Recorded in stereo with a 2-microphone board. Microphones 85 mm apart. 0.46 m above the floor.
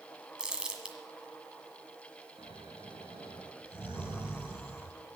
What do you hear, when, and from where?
0.4 s crumpling: 10° right (ahead or behind), 1.7 m
2.4 s snoring: 80° right, 5.5 m